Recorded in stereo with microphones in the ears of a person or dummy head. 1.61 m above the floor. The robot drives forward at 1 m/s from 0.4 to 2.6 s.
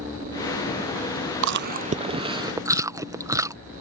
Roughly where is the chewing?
Right.